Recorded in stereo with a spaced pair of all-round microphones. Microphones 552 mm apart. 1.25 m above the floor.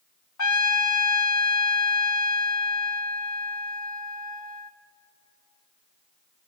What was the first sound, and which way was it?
A trumpet, 35° left (ahead or behind).